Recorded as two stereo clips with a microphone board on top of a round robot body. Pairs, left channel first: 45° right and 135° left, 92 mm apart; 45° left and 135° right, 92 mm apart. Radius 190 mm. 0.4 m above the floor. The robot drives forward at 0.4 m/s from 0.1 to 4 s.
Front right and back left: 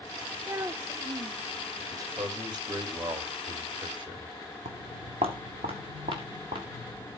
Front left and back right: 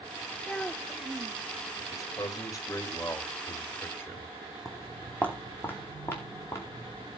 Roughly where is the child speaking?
Behind left.